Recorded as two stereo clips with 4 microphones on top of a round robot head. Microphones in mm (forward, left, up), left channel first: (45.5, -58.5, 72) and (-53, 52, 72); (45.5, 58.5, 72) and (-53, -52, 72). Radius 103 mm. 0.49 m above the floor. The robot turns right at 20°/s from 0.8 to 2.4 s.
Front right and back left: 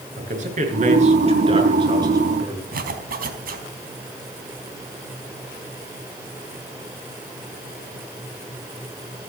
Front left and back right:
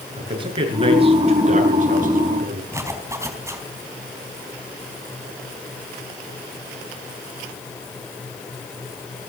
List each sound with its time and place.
0.2 s a man speaking: 170° left, 7.5 m; by 2.6 s 155° right, 7.5 m
2.7 s a zipper: 155° left, 4 m